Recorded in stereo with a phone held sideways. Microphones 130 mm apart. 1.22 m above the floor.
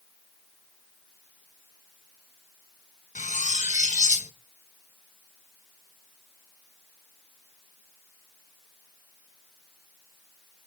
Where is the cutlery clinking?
70° left (ahead or behind), 0.8 m.